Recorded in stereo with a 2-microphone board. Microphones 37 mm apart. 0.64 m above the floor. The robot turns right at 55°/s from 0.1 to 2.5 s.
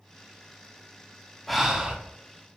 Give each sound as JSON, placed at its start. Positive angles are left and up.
{"t": 1.5, "sound": "breathing", "side_deg": 0, "distance_m": 0.6}